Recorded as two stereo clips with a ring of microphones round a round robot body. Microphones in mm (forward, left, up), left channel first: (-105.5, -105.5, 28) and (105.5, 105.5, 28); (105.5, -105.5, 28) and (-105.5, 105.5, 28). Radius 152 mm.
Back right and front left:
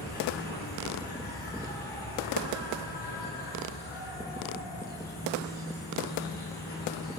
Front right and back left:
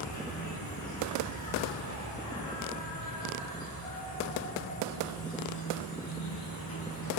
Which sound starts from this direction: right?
An insect, at 0.0 s.